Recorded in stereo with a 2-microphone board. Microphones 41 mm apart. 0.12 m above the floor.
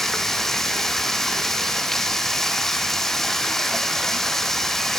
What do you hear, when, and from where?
0.0 s running water: 10° left (ahead or behind), 1.9 m